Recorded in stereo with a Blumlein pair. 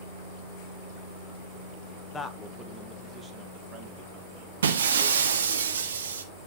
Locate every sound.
2.1 s a man speaking: 15° left, 1.2 m; by 5.6 s 50° right, 2.5 m
4.6 s breaking glass: 65° right, 1.4 m